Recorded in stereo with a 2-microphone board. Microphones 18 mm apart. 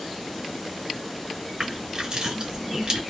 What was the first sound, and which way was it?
Crushing, 45° right (ahead or behind).